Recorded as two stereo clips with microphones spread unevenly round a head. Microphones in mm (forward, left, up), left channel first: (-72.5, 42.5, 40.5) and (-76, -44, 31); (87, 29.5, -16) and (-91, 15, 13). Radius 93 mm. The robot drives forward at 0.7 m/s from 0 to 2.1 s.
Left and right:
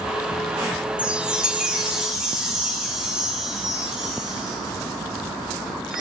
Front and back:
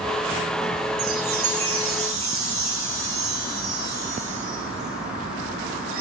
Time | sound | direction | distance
1.0 | a chime | 170° right | 0.6 m